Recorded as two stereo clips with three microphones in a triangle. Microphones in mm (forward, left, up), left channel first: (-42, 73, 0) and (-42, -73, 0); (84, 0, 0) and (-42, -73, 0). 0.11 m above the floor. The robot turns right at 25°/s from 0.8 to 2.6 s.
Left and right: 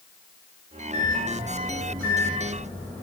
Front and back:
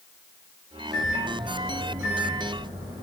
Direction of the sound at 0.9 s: 115° left.